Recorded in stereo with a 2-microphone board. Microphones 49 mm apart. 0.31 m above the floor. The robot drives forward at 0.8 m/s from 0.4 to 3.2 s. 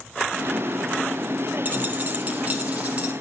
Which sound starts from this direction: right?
A dropped coin, at 1.6 s.